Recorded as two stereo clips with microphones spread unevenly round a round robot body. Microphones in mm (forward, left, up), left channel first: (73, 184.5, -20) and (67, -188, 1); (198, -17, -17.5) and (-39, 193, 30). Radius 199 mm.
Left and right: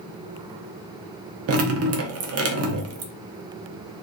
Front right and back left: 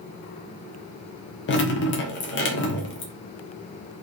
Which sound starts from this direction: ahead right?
Dripping, at 1.5 s.